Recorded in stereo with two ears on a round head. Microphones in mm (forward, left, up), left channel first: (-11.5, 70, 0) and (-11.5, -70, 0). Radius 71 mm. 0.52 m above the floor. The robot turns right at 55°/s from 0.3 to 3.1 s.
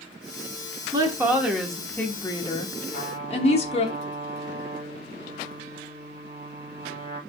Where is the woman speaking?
40° right, 1.0 m; by 3.9 s 80° left, 1.0 m.